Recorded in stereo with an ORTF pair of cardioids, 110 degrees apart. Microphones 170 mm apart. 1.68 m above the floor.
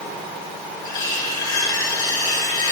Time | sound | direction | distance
0.8 | cutlery clinking | 25° left | 3 m